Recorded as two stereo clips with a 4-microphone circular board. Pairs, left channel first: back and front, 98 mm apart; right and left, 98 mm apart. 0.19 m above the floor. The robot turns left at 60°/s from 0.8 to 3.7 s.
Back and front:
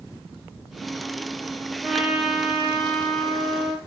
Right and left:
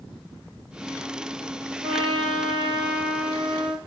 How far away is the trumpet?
About 5.5 m.